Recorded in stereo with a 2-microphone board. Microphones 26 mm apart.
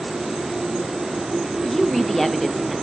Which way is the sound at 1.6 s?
10° left (ahead or behind).